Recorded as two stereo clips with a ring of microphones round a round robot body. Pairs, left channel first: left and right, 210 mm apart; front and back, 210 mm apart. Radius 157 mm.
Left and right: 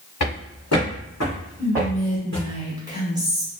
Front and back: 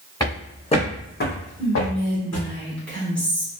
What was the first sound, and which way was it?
Footsteps, 75° left.